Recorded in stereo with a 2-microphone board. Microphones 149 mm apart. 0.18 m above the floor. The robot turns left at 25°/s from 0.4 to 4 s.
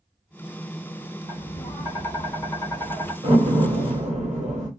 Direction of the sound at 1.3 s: 90° left.